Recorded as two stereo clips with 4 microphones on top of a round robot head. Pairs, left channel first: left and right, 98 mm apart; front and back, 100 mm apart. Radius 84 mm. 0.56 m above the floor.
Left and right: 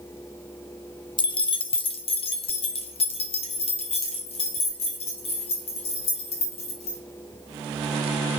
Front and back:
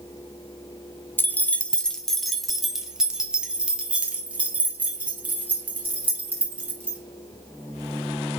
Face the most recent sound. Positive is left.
turn(degrees=110)